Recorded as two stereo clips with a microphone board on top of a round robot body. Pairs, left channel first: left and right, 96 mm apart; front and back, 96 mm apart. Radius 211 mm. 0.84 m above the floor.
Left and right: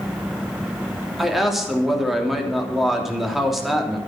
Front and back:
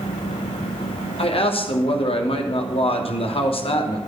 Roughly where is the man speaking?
Ahead.